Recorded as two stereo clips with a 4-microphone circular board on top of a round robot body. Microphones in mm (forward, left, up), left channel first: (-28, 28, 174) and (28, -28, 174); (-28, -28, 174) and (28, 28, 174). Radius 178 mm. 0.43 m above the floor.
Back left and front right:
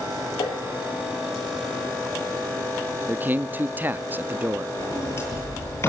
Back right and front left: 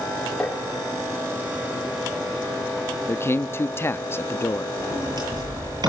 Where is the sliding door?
80° left, 9 m.